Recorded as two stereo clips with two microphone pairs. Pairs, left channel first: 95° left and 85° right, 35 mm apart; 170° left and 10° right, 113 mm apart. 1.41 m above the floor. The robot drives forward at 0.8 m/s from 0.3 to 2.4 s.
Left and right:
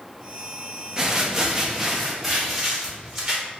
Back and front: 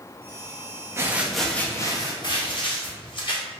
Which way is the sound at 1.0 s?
35° right.